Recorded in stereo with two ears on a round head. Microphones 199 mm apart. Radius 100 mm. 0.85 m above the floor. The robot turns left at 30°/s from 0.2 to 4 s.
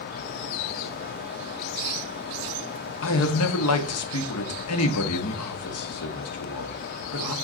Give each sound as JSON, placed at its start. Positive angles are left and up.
{"t": 3.0, "sound": "a man speaking", "side_deg": 65, "distance_m": 1.3}